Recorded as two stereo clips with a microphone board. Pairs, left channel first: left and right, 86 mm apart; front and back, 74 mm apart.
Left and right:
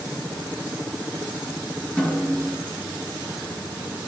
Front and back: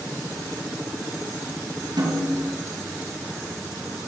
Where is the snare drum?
165° left, 4.5 m.